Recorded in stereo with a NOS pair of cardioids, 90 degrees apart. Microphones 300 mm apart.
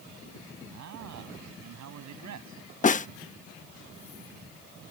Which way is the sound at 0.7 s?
65° right.